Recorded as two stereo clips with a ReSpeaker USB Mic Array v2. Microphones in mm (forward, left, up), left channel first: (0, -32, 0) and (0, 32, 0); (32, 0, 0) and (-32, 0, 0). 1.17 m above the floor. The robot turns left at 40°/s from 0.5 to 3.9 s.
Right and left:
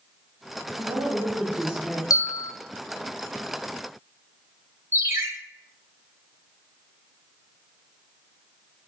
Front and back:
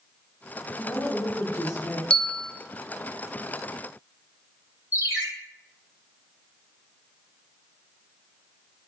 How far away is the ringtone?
About 3.5 m.